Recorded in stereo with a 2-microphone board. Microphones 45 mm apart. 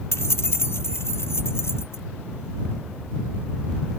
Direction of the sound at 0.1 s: 80° left.